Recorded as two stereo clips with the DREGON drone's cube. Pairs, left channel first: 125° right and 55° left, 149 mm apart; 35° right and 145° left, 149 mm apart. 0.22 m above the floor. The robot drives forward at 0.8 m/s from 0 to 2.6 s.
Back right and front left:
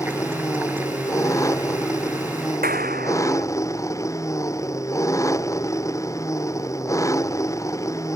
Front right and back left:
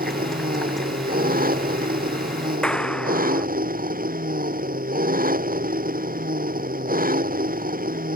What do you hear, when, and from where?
0.0 s an engine running: 165° left
2.6 s a clap: 50° left